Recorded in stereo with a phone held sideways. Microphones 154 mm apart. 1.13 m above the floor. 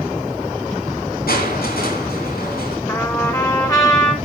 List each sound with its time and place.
1.3 s crushing: 75° left (ahead or behind), 3.5 m
2.9 s a trumpet: 25° left (ahead or behind), 4 m